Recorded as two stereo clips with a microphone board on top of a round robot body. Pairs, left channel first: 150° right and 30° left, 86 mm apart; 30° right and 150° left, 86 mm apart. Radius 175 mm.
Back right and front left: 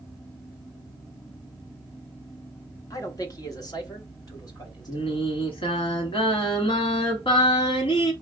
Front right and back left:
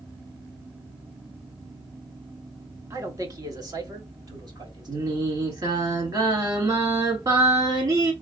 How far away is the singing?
About 1.3 m.